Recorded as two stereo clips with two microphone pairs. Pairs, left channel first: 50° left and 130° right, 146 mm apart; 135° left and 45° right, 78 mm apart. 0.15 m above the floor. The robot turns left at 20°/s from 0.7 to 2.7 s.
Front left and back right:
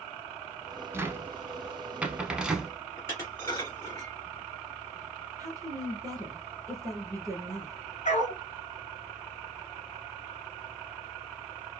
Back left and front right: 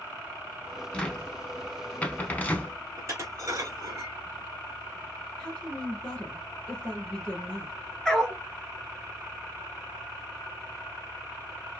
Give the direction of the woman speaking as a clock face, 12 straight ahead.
5 o'clock.